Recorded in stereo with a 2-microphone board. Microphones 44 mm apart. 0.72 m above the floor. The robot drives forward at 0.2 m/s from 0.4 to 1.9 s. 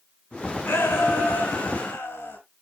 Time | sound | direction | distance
0.7 | a shout | 80° left | 7 m